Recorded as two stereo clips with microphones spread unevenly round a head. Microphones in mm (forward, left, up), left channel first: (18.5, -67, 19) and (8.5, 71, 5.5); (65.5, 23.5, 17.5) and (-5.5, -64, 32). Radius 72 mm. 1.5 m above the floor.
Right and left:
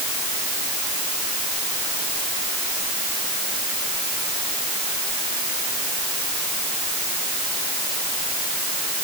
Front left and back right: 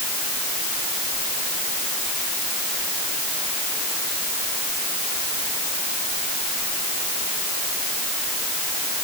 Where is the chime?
No chime in this recording.